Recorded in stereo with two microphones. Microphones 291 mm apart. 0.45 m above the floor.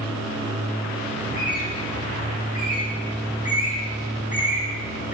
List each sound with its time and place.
1.2 s a bird: 25° left (ahead or behind), 7 m